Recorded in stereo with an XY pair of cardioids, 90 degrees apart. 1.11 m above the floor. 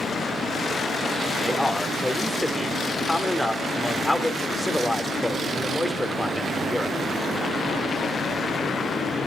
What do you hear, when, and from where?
1.4 s a man speaking: 10° left, 3.5 m